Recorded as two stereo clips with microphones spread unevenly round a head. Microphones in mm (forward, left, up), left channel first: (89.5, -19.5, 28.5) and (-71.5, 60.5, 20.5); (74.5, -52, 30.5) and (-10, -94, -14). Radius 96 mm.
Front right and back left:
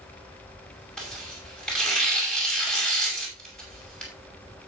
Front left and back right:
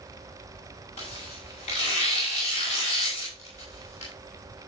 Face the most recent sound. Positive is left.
turn(degrees=60)